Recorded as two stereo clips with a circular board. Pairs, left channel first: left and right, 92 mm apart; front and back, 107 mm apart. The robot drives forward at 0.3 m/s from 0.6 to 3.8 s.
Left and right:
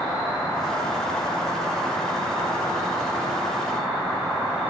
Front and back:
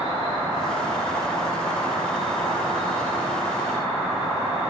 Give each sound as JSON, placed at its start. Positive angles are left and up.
{"t": 0.0, "sound": "an insect", "azimuth_deg": 180, "distance_m": 1.8}